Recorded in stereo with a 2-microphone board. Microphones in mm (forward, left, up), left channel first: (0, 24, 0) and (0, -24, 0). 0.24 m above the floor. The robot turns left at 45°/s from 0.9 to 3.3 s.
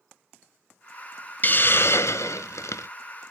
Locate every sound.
1.4 s a hiss: 140° left, 0.6 m; by 2.9 s 75° left, 0.6 m